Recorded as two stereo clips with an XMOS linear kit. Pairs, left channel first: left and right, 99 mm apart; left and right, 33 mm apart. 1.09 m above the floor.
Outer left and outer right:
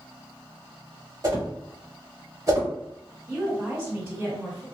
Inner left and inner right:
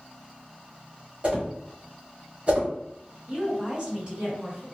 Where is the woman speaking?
25° right (ahead or behind), 1.8 m.